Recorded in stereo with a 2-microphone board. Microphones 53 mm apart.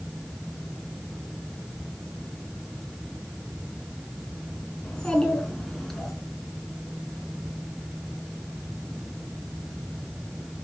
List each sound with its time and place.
4.8 s a child speaking: 20° left (ahead or behind), 4 m; by 6.1 s 5° left (ahead or behind), 4.5 m